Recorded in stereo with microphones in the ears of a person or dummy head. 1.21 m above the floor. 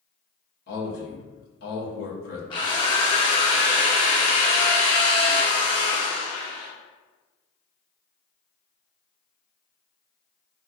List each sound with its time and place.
0.7 s a man speaking: 50° left (ahead or behind), 0.7 m
2.5 s a drill: 25° left (ahead or behind), 0.6 m